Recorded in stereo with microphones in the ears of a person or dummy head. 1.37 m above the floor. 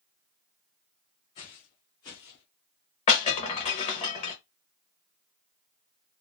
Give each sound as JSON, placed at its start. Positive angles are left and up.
{"t": 1.4, "sound": "footsteps", "side_deg": 20, "distance_m": 1.4}
{"t": 3.1, "sound": "breaking glass", "side_deg": 25, "distance_m": 0.9}